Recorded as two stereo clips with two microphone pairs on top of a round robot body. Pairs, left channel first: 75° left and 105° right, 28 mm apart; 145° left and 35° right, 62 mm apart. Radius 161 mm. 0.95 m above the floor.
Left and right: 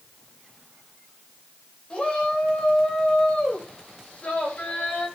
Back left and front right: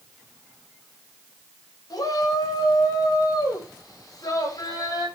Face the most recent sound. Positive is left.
turn(degrees=120)